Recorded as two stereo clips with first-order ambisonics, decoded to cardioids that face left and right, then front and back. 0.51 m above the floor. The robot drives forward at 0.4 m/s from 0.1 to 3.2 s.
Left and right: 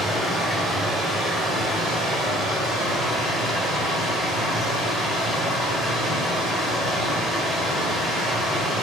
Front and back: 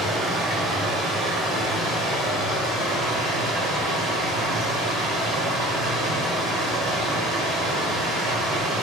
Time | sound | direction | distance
0.0 | running water | 170° right | 1.1 m